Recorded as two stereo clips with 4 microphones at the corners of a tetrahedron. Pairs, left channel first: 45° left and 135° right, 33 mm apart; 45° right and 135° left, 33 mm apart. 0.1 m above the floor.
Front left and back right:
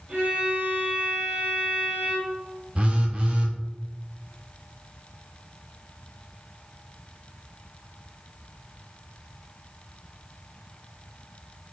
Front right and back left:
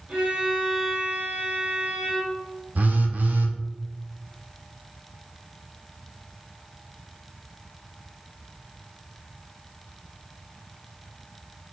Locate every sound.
0.1 s a violin: straight behind, 2 m
2.8 s a phone buzzing: 170° left, 0.7 m